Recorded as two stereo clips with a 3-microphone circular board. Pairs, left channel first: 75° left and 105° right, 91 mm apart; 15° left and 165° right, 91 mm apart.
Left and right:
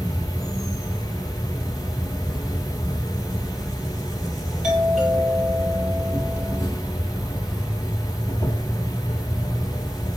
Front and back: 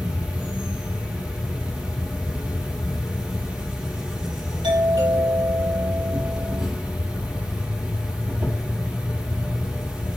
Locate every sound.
0.0 s an insect: 115° left, 1.6 m
4.6 s a doorbell: 170° left, 5 m